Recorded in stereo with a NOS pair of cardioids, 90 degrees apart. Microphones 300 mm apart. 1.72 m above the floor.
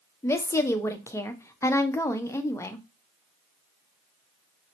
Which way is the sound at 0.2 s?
10° left.